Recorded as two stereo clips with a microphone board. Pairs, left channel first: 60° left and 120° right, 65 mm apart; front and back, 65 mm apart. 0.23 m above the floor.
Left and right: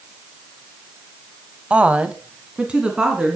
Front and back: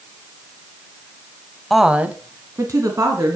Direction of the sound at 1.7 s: 80° right.